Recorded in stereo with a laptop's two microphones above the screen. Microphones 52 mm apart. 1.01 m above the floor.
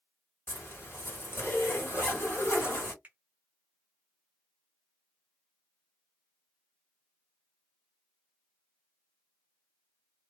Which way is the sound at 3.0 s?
30° right (ahead or behind).